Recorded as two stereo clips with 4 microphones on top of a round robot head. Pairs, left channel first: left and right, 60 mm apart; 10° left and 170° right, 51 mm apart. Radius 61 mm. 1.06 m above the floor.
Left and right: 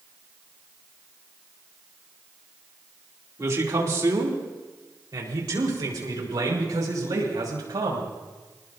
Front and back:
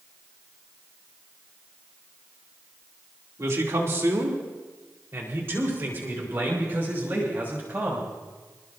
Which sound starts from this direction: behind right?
A man speaking, at 3.4 s.